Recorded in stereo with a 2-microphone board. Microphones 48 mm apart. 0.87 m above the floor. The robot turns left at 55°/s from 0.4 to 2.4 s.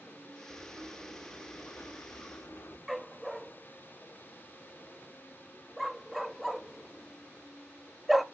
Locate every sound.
0.5 s writing: 165° right, 1.4 m; by 2.8 s 90° left, 1.4 m
2.9 s a dog barking: centre (ahead or behind), 0.5 m